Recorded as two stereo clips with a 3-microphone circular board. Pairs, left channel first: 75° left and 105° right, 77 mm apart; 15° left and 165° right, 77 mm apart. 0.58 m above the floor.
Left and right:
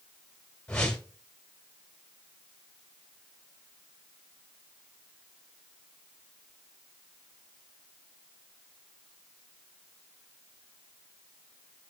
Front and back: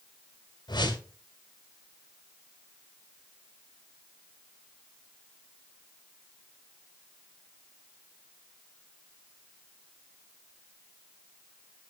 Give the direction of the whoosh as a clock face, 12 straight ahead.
12 o'clock.